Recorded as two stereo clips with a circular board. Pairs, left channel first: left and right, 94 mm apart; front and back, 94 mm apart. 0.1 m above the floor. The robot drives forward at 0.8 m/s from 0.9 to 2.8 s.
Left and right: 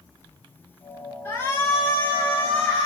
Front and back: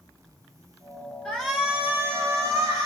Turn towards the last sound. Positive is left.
turn(degrees=155)